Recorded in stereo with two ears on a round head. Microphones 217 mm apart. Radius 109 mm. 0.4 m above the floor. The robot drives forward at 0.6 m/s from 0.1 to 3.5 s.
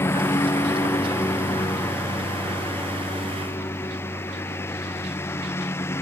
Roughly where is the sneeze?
No sneeze in this recording.